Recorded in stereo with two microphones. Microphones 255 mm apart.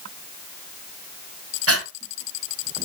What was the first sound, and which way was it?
Breathing, 65° right (ahead or behind).